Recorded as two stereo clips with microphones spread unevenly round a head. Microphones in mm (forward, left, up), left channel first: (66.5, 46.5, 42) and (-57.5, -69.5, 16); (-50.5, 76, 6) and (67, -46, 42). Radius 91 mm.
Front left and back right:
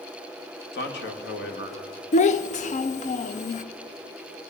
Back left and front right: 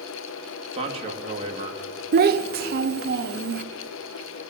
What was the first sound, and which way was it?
A man speaking, 15° left.